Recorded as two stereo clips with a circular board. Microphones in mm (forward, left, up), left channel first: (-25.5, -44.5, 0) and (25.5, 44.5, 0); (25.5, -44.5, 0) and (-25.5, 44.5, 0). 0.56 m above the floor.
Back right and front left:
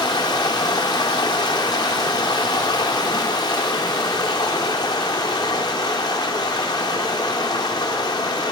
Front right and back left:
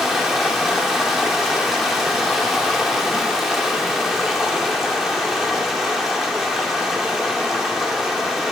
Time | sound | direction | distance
0.0 | running water | 155° right | 0.9 m